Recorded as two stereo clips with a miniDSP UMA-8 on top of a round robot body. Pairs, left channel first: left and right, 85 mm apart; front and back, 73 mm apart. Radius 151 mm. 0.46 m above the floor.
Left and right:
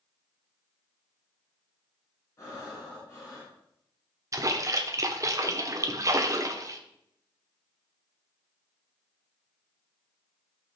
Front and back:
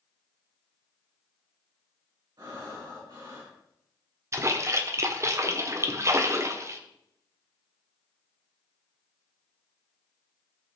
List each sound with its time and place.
2.4 s breathing: 140° left, 4.5 m
4.3 s a splash: 135° right, 1.4 m